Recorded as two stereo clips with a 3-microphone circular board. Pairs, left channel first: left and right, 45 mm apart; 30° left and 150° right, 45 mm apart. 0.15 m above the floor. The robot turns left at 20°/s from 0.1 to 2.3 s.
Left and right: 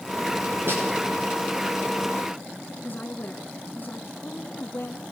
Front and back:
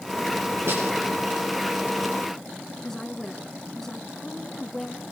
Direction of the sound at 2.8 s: 110° left.